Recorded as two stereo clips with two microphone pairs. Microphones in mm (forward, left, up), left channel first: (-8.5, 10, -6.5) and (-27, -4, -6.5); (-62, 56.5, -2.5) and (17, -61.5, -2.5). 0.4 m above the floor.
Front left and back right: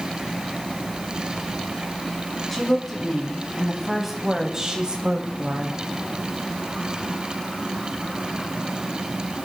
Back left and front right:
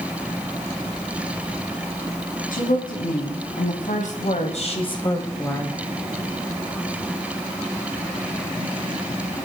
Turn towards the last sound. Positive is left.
turn(degrees=-150)